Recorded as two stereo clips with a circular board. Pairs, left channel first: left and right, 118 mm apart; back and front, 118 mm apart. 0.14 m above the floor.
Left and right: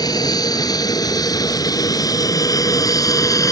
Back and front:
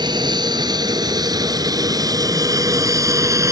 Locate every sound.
0.0 s an aircraft: 40° left; by 3.5 s 45° left